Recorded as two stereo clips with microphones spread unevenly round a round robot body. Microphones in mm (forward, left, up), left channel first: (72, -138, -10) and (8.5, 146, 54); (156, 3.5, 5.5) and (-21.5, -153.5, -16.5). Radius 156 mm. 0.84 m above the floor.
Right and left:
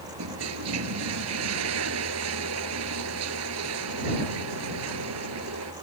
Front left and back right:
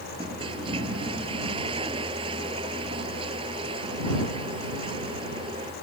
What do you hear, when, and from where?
0.2 s a toilet flushing: 145° left